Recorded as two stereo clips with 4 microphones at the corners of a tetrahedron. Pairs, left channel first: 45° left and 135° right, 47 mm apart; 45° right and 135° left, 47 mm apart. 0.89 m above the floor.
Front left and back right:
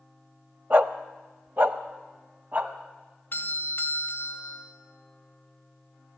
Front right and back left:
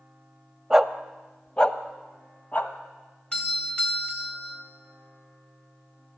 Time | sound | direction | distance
0.7 | a dog barking | 145° right | 0.9 m
3.3 | a doorbell | 15° left | 2 m